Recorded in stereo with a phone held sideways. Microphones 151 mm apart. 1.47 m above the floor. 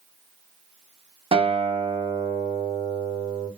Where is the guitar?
40° right (ahead or behind), 0.5 m.